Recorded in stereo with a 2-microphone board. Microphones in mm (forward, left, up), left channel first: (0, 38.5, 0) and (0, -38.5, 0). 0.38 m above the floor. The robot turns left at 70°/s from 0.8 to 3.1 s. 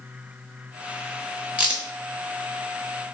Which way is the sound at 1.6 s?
20° right (ahead or behind).